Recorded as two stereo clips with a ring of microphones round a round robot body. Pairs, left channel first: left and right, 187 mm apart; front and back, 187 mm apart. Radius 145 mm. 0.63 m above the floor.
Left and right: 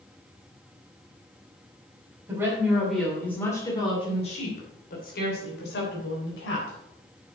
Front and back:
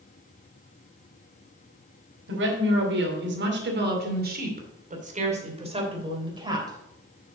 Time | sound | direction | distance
2.3 | a woman speaking | 170° right | 3 m